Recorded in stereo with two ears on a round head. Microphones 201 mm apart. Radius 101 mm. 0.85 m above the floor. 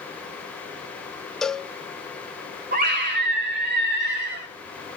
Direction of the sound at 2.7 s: 45° right (ahead or behind).